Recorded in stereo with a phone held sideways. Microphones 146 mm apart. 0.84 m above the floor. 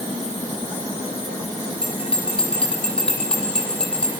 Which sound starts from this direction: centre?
A bell, at 1.8 s.